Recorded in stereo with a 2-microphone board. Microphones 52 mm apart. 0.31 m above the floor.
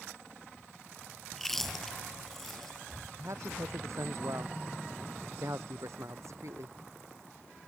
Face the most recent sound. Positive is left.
turn(degrees=-65)  # may be behind; listen again after turning